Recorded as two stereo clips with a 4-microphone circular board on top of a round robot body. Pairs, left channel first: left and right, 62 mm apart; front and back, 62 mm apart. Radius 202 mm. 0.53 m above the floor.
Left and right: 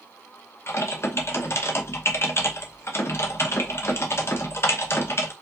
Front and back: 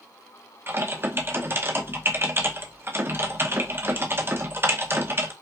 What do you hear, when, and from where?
0.7 s typing on a keyboard: 135° left, 1.0 m